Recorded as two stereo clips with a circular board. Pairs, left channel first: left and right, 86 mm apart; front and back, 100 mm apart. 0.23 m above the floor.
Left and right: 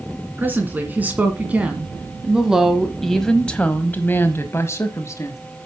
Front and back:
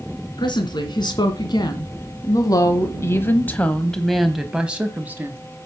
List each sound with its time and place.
0.4 s a woman speaking: 25° right, 2 m; by 5.4 s 120° left, 1.5 m